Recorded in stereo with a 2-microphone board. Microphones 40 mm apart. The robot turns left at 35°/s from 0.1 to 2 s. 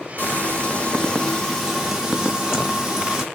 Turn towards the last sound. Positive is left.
turn(degrees=-20)